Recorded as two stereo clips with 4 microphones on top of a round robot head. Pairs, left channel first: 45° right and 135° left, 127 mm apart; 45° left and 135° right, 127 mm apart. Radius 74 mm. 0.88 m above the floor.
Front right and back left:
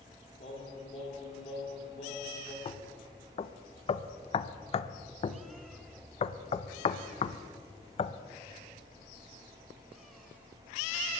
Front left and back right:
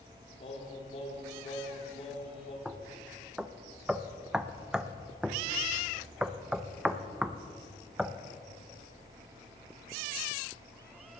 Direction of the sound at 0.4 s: Straight ahead.